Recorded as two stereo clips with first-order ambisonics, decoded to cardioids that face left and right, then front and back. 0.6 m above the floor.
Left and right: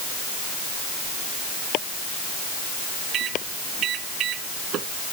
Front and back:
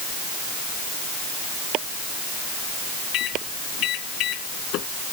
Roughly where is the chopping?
Behind left.